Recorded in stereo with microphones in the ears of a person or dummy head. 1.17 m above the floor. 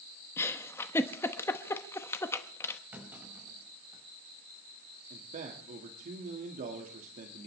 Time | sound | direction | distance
0.4 | a giggle | 10° left (ahead or behind) | 0.9 m
2.9 | a clunk | 10° right (ahead or behind) | 5.5 m
5.1 | a man speaking | 45° right (ahead or behind) | 1.8 m